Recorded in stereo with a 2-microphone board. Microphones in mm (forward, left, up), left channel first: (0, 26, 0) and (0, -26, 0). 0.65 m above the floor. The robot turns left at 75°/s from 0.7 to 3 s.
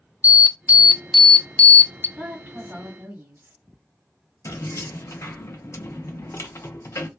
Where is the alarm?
145° right, 0.6 m; by 2.1 s 115° left, 0.6 m.